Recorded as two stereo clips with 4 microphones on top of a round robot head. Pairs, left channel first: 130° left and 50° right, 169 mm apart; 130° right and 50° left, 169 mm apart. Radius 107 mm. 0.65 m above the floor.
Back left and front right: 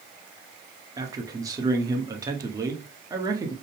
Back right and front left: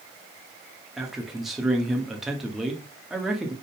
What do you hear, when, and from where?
1.0 s a man speaking: 35° right, 1.1 m